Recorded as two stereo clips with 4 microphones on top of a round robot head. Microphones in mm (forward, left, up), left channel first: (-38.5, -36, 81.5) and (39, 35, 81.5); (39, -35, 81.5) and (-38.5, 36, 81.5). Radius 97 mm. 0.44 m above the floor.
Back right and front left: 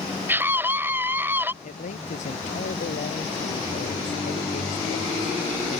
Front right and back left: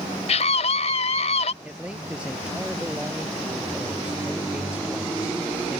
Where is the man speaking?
140° right.